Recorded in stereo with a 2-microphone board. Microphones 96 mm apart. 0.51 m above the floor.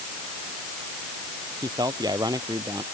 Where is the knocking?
No knocking in this recording.